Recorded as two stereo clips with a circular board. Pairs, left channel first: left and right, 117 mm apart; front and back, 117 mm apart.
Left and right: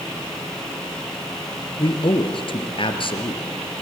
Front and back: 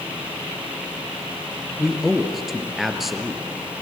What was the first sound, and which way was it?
A man speaking, 90° left.